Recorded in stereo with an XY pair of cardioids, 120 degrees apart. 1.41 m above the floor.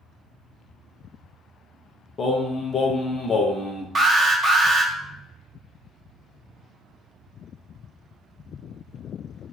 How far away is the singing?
About 0.7 m.